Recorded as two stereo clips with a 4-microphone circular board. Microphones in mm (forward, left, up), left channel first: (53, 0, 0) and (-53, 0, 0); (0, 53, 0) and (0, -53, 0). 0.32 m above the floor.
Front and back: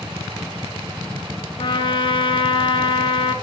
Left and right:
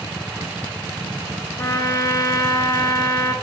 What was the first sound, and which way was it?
A trumpet, 30° left.